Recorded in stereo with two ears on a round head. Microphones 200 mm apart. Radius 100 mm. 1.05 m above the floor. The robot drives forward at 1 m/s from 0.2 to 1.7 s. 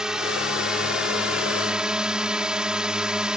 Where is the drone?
5° right (ahead or behind).